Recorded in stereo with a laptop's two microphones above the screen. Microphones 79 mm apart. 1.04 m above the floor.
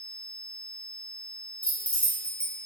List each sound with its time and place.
1.6 s keys jangling: 15° left (ahead or behind), 0.9 m